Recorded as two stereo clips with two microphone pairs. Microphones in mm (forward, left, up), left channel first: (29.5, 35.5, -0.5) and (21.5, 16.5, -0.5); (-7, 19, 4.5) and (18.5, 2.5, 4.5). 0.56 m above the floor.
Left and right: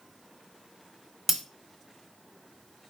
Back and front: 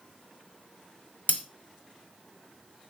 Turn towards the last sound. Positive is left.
turn(degrees=160)